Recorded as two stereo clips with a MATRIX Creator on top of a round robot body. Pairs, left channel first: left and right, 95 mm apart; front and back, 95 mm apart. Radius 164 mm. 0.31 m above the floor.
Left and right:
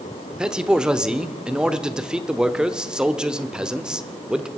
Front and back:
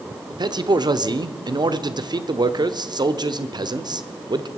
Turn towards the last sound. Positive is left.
turn(degrees=-170)